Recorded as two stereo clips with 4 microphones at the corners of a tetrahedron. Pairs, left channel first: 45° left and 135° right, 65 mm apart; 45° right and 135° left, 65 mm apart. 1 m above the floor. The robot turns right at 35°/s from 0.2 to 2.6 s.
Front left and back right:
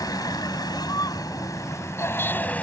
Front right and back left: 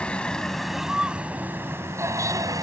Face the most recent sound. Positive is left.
turn(degrees=115)